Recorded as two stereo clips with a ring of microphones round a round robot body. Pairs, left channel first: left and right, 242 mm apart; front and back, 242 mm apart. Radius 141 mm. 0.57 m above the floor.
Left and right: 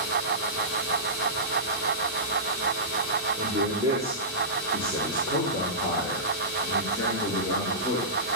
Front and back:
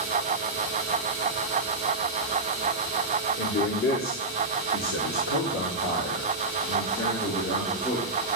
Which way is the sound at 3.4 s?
35° right.